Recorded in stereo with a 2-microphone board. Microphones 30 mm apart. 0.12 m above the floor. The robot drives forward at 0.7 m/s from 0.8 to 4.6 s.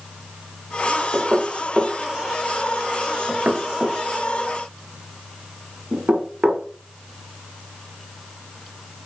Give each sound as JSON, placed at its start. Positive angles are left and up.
{"t": 1.1, "sound": "knocking", "side_deg": -30, "distance_m": 2.5}